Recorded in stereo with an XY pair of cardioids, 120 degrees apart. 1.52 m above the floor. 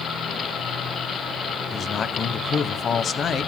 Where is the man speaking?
40° left, 1.0 m.